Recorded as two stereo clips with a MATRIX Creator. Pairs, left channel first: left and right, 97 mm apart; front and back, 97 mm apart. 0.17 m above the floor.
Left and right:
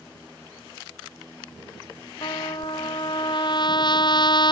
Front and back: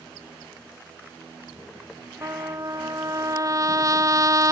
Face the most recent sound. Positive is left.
turn(degrees=125)